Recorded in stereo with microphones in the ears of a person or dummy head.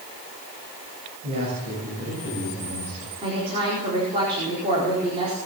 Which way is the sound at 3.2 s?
30° right (ahead or behind).